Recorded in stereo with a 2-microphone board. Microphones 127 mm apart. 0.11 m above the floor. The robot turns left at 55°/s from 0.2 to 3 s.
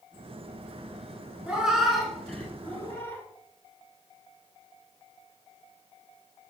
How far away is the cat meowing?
About 0.6 m.